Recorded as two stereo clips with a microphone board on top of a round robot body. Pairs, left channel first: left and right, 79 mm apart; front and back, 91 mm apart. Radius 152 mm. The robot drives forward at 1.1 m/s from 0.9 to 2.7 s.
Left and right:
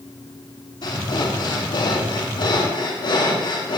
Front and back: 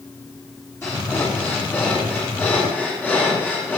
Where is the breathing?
60° left, 9.5 m; by 3.8 s 70° left, 9 m.